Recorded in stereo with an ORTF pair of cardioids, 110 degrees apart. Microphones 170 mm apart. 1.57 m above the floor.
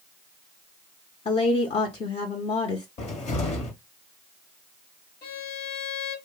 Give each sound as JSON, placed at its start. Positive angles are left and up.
{"t": 1.2, "sound": "a woman speaking", "azimuth_deg": 40, "distance_m": 1.0}
{"t": 3.0, "sound": "a cupboard door", "azimuth_deg": 50, "distance_m": 1.3}
{"t": 5.2, "sound": "a violin", "azimuth_deg": 65, "distance_m": 1.2}